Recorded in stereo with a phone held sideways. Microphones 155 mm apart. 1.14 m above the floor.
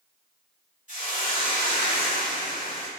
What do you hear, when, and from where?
0.9 s a hiss: 55° left (ahead or behind), 1.9 m